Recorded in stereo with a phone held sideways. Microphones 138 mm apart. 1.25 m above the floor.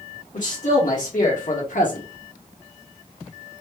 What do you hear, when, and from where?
0.3 s a man speaking: 65° left (ahead or behind), 1.9 m; by 2.0 s 70° left (ahead or behind), 1.0 m